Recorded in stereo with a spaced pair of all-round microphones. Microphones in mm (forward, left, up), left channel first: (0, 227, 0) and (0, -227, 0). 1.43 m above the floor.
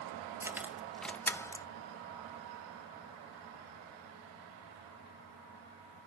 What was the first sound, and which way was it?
Keys jangling, 5° right (ahead or behind).